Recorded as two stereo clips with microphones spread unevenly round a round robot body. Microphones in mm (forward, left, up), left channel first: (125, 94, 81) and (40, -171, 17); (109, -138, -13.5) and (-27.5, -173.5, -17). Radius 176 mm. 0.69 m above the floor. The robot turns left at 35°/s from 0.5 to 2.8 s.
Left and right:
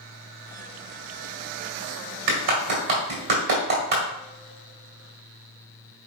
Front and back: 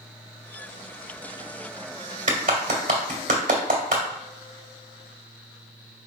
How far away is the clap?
About 1.9 m.